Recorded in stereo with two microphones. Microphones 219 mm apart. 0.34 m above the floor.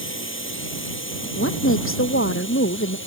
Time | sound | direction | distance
0.0 | a drone | 65° left (ahead or behind) | ?
1.4 | a woman speaking | 75° left (ahead or behind) | ?